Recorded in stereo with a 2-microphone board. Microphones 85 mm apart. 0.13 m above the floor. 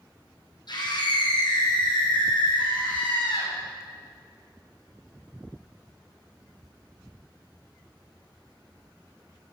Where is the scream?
55° left (ahead or behind), 5.5 m; by 3.5 s 65° left (ahead or behind), 7 m.